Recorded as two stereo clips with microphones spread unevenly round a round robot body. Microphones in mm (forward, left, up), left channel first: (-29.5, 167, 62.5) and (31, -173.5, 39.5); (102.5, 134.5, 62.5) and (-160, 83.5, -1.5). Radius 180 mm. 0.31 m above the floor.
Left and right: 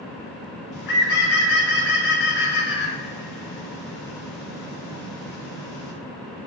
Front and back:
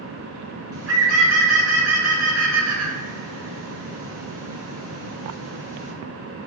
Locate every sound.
0.7 s a bird: 160° left, 3 m